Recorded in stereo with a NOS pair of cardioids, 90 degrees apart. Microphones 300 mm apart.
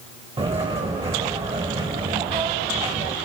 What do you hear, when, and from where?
0.4 s footsteps: 20° right, 4.5 m